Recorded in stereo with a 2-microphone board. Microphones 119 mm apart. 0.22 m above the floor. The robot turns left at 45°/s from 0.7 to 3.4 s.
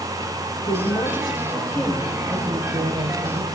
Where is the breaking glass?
No breaking glass in this recording.